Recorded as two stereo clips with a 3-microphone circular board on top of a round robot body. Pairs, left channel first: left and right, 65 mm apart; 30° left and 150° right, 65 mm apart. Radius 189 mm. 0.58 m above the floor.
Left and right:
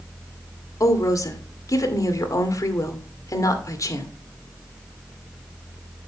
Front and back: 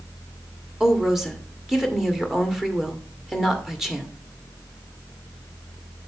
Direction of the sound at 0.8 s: 125° left.